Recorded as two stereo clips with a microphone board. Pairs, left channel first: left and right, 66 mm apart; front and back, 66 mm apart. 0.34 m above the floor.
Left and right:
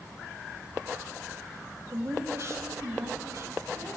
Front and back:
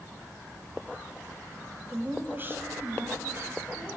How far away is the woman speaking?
About 1.5 m.